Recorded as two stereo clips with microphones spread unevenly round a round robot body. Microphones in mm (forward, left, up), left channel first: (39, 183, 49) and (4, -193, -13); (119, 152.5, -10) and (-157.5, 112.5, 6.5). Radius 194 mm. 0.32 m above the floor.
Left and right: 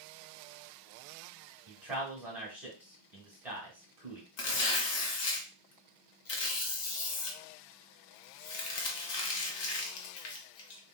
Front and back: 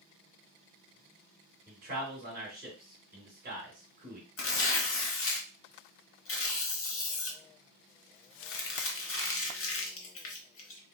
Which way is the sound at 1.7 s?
155° right.